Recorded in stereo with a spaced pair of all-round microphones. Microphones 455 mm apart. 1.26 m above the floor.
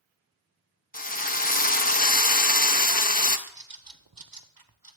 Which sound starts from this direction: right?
A bird, at 3.5 s.